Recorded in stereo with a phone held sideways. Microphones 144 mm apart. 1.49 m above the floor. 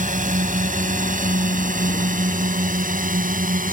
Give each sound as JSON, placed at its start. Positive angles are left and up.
{"t": 0.0, "sound": "a drone", "side_deg": -70}